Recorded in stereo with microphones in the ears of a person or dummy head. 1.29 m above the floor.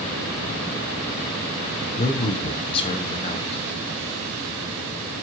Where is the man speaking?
30° left (ahead or behind), 0.8 m.